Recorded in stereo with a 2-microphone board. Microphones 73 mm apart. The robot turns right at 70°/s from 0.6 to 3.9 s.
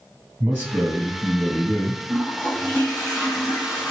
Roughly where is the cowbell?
I don't hear a cowbell.